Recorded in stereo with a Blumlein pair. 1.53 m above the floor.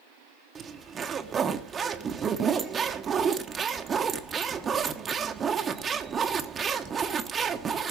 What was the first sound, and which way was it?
A zipper, 20° right.